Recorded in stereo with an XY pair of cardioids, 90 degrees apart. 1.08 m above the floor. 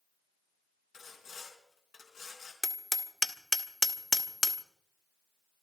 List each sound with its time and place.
0.9 s sawing: 70° left, 4 m
2.6 s hammering: 20° left, 1.3 m